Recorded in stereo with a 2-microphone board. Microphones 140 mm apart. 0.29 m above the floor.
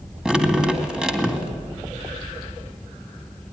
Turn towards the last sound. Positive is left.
turn(degrees=-5)  # may be behind; listen again after turning